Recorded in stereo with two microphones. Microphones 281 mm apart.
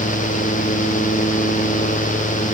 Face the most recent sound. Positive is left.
No sound to turn to.